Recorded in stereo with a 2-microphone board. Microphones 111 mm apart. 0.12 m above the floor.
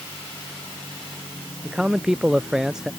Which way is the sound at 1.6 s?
5° right (ahead or behind).